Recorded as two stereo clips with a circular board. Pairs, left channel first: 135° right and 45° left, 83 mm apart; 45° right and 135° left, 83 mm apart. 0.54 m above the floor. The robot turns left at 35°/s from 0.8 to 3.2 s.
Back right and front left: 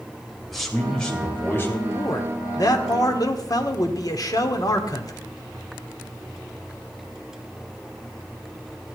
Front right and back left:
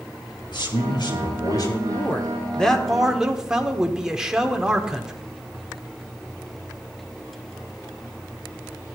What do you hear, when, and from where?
0.5 s a man speaking: 50° right, 2.5 m; by 1.8 s 85° right, 2.5 m
1.9 s a man speaking: 100° right, 1.5 m; by 5.1 s 145° right, 1.5 m